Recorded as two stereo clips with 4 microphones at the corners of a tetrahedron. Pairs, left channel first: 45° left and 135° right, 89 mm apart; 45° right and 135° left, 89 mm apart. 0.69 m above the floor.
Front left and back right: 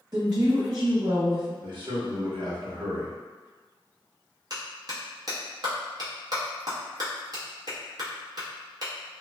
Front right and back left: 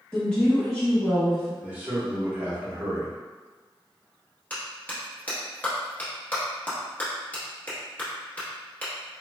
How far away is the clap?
About 0.9 m.